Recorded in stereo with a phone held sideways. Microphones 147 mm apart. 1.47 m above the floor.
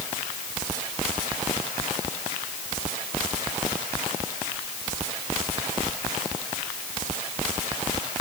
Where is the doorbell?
No doorbell in this recording.